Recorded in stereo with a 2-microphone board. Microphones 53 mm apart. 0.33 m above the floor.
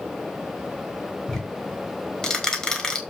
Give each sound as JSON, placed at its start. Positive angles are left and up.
{"t": 1.3, "sound": "ticking", "side_deg": 15, "distance_m": 3.0}